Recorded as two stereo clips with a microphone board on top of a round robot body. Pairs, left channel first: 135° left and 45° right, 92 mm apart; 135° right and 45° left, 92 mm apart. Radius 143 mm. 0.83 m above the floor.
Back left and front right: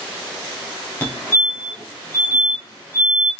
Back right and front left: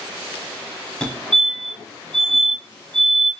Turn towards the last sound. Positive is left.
turn(degrees=165)